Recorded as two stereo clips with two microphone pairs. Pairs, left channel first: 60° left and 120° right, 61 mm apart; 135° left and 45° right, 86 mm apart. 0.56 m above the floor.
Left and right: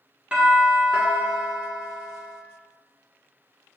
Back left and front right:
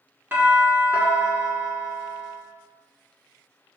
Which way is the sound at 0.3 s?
70° right.